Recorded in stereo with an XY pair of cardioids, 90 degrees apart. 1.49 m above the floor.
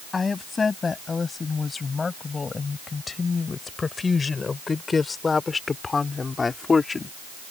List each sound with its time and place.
0.1 s a woman speaking: 40° left; by 7.1 s 35° left